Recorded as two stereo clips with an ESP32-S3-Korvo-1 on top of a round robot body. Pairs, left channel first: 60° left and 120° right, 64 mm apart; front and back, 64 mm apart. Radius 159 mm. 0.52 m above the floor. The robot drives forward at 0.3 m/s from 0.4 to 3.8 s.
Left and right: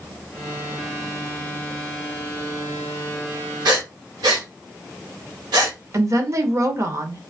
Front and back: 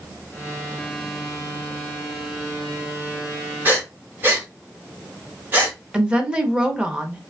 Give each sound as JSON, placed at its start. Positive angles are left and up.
{"t": 3.6, "sound": "breathing", "azimuth_deg": -120, "distance_m": 1.1}
{"t": 5.9, "sound": "a woman speaking", "azimuth_deg": -110, "distance_m": 0.8}